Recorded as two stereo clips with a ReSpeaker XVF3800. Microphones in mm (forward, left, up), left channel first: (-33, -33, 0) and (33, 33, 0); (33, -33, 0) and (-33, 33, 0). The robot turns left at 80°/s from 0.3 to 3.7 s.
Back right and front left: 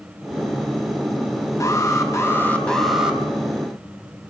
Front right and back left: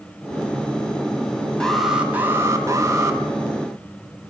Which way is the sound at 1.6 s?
120° right.